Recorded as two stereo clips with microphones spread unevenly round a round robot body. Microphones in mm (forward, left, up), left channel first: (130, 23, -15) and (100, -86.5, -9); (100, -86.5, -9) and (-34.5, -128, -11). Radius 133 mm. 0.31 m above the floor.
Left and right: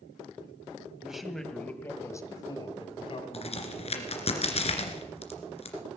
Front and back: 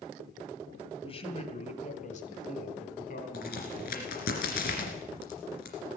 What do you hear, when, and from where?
1.0 s a man speaking: 20° right, 2 m; by 4.3 s 60° left, 3.5 m
3.3 s a crack: 50° left, 2.5 m